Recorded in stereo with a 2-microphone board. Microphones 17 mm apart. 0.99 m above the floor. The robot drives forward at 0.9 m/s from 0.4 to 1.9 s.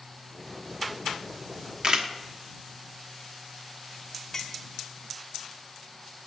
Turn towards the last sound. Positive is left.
turn(degrees=25)  # may be behind; listen again after turning